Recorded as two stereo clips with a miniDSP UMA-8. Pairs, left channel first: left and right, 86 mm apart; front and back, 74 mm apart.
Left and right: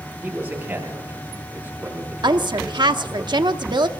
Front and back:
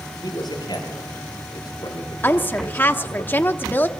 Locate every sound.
0.2 s a man speaking: 30° right, 7.5 m
2.2 s a woman speaking: 60° right, 1.0 m